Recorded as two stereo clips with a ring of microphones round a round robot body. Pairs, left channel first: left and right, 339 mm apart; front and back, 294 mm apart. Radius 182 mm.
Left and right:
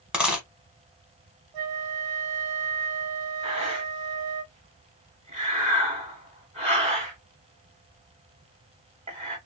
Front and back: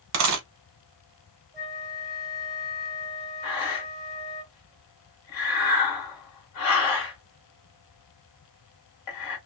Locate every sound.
0.1 s a dropped coin: 175° right, 0.7 m
1.5 s a flute: 90° right, 1.0 m
3.4 s breathing: 20° right, 1.0 m